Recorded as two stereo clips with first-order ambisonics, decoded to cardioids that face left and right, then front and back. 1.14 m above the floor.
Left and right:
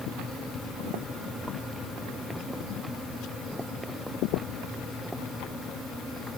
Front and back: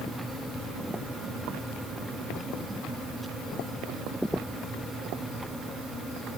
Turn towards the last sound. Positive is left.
No sound to turn to.